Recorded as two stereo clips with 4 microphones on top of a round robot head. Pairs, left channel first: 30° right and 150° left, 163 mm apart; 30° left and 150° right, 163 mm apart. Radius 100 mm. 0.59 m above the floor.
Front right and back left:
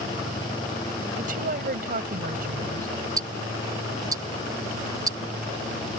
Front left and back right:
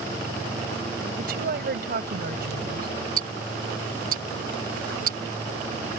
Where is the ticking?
145° right.